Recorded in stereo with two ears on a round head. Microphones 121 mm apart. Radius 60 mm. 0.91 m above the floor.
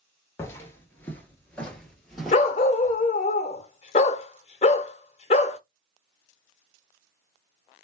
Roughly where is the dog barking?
Left.